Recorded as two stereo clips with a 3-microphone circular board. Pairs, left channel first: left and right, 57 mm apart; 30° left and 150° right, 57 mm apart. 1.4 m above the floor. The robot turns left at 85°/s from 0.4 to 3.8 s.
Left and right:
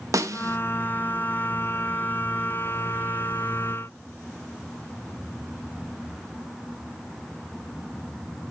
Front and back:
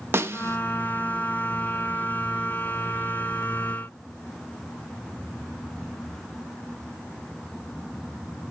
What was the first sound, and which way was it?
A snare drum, 105° right.